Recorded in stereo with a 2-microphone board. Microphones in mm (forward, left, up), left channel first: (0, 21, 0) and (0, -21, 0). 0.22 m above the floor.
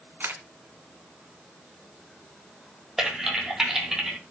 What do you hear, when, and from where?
0.2 s a camera shutter: 55° right (ahead or behind), 1.4 m
3.0 s typing on a keyboard: 15° right (ahead or behind), 1.9 m